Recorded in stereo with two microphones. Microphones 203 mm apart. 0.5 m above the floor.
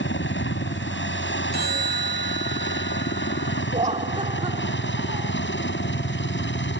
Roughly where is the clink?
I don't hear a clink.